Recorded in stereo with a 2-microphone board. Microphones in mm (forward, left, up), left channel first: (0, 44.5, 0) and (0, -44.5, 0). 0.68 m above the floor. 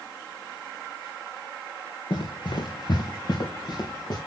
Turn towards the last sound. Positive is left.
turn(degrees=50)  # may be behind; listen again after turning